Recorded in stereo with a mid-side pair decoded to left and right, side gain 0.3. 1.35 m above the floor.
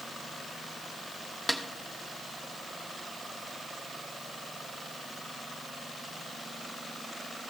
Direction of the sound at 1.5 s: 10° right.